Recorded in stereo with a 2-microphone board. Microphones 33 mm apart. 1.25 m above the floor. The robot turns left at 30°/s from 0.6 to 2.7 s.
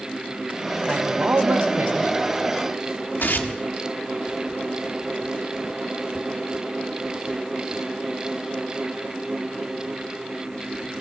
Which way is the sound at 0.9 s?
40° right.